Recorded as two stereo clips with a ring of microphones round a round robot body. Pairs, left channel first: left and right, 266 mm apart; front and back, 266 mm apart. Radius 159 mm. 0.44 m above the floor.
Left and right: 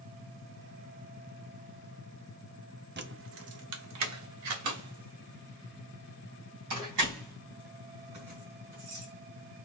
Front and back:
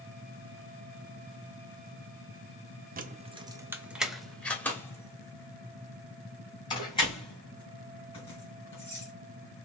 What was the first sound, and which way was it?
Keys jangling, 130° right.